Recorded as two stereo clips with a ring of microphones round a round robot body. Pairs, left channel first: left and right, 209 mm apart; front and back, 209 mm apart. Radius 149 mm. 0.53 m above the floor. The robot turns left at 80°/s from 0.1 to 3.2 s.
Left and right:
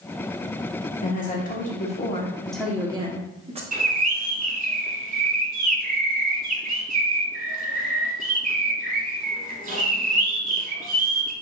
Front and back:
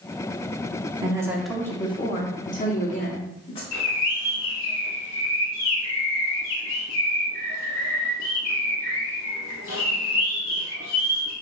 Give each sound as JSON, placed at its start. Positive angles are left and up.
{"t": 1.0, "sound": "a woman speaking", "azimuth_deg": 125, "distance_m": 1.0}
{"t": 3.7, "sound": "a bird", "azimuth_deg": -40, "distance_m": 1.0}